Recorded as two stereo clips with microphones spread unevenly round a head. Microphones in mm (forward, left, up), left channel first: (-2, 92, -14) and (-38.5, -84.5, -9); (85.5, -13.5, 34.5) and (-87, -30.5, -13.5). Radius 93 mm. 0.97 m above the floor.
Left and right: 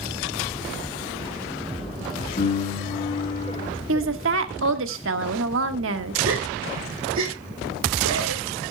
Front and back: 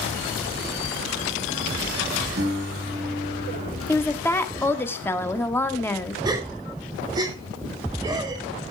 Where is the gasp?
110° right, 3 m.